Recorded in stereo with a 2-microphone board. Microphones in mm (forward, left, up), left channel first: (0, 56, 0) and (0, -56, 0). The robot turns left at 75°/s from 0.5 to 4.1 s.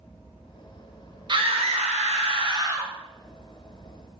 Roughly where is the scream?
Ahead right.